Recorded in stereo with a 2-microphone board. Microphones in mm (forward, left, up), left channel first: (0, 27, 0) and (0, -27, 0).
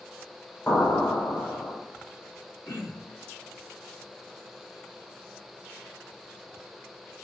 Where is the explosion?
40° left (ahead or behind), 4 m.